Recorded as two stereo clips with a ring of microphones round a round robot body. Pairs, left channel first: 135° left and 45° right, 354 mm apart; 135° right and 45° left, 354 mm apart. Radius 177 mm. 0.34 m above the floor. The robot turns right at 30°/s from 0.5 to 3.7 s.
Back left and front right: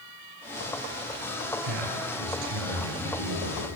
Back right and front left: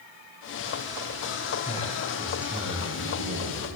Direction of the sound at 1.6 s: 65° right.